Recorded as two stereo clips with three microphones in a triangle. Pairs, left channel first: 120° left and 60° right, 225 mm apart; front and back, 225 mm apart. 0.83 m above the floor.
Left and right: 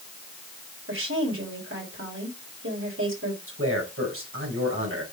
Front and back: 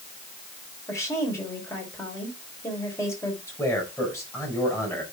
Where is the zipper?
No zipper in this recording.